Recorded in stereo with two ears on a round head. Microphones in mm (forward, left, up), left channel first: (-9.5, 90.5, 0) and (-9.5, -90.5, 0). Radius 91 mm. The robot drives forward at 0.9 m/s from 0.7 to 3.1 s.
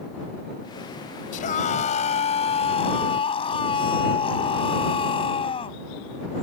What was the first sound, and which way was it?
A scream, 40° left (ahead or behind).